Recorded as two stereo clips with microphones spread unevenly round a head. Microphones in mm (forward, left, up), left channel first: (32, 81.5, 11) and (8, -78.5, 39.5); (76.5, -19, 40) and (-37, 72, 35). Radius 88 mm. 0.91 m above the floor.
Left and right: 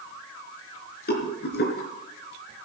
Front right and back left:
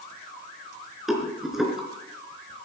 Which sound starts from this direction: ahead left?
A rattle, at 1.1 s.